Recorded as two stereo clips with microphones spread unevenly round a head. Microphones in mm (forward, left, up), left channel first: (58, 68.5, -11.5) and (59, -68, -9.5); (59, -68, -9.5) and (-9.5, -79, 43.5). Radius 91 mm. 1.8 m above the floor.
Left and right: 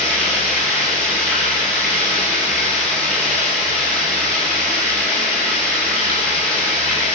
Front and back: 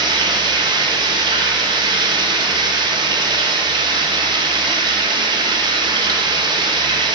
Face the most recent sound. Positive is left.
turn(degrees=175)